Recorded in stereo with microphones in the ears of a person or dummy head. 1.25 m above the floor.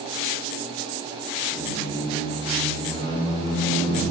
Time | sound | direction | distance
1.5 | a squeak | 40° left (ahead or behind) | 2.0 m